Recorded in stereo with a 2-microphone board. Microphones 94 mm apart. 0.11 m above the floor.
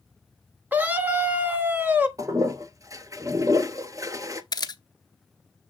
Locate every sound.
0.7 s a scream: 20° right (ahead or behind), 1.2 m
2.2 s a toilet flushing: 35° right (ahead or behind), 0.7 m
4.5 s a camera shutter: 45° left (ahead or behind), 0.6 m